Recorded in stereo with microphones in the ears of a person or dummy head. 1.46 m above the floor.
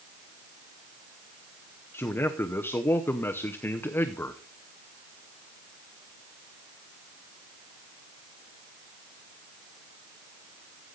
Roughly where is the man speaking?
Centre.